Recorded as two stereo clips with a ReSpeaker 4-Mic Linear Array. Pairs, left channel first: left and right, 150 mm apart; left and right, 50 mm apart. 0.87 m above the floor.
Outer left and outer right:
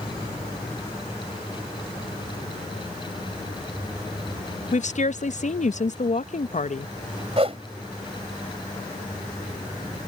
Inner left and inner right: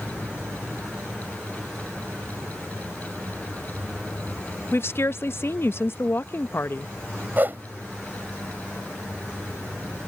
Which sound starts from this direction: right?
A whoosh, at 7.4 s.